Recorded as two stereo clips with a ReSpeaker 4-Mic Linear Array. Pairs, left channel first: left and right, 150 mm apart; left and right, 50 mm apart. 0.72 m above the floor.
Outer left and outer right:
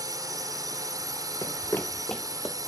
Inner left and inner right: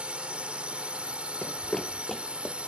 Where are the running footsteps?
25° left (ahead or behind); by 2.5 s centre (ahead or behind).